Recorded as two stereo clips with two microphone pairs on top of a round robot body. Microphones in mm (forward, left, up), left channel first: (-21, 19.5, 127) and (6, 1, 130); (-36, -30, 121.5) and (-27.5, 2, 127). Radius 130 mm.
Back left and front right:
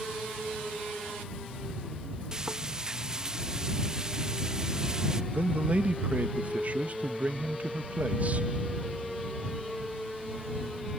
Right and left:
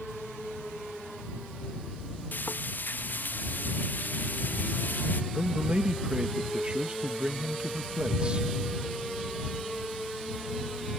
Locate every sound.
2.3 s frying: 105° right
5.3 s a man speaking: 15° left